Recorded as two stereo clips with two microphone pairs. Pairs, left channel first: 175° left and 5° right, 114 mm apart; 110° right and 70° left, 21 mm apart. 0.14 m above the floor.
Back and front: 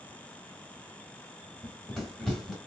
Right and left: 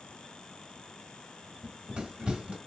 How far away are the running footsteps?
About 1.2 m.